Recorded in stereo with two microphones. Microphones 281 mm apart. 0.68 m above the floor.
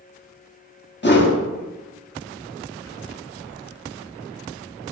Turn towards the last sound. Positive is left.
turn(degrees=35)  # may be behind; listen again after turning